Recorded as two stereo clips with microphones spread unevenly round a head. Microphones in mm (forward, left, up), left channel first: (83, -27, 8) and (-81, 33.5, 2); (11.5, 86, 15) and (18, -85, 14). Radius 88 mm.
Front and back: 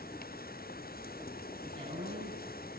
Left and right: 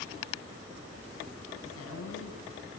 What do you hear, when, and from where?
1.6 s a woman speaking: 95° left, 9 m